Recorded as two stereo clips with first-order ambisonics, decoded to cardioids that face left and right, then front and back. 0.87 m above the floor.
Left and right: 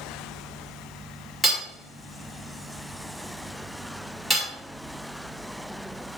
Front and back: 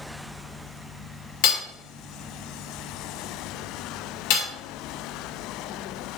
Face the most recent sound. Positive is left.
turn(degrees=5)